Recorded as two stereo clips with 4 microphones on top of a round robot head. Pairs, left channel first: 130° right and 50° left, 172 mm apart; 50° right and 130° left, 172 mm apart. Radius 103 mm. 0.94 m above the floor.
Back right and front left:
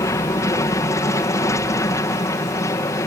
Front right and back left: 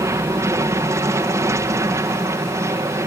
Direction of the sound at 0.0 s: Straight behind.